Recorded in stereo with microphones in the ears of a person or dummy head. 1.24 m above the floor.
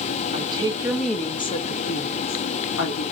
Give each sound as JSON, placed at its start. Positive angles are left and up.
{"t": 0.3, "sound": "a woman speaking", "side_deg": -25, "distance_m": 0.7}